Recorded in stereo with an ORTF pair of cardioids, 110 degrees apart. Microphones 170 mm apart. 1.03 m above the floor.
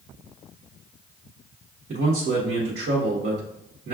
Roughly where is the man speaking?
Ahead right.